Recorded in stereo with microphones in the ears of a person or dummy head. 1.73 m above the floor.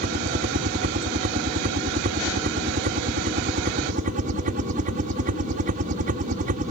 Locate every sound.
0.0 s a helicopter: 45° right (ahead or behind)